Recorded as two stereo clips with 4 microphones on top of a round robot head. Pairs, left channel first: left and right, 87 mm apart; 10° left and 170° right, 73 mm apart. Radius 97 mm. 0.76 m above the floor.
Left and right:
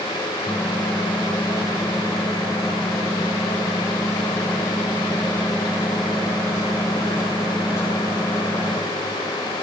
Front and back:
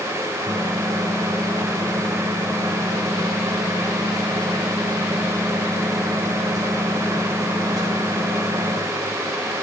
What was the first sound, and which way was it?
A microwave, 155° left.